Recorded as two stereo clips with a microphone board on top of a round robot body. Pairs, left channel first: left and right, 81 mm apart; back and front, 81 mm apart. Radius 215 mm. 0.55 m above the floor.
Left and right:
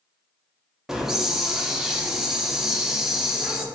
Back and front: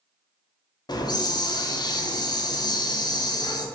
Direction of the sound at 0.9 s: 175° right.